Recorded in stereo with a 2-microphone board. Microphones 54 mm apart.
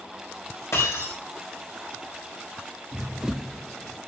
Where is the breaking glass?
60° left (ahead or behind), 8 m.